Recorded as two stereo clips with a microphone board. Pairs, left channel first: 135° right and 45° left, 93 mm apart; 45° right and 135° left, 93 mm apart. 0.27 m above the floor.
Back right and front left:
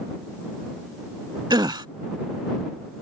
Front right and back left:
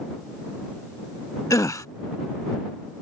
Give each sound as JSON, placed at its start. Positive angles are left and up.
{"t": 1.5, "sound": "a gasp", "azimuth_deg": 5}